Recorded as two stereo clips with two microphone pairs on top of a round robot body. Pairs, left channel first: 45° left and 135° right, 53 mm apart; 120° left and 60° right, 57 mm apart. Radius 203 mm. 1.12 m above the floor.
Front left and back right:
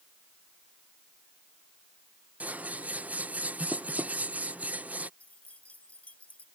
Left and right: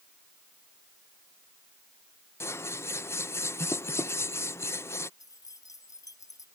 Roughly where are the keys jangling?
Left.